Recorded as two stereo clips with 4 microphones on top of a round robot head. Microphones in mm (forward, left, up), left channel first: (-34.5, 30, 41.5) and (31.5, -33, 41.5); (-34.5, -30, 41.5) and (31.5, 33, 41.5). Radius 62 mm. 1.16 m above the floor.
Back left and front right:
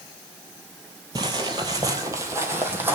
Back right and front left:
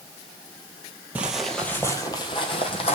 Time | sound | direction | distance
1.1 | footsteps | 20° right | 1.3 m